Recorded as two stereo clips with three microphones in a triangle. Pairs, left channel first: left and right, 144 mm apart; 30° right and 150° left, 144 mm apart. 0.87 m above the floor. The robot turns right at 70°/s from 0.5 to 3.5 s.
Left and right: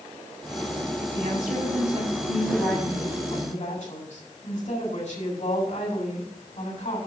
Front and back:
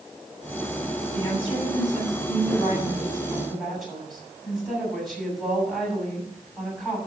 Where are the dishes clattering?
I don't hear dishes clattering.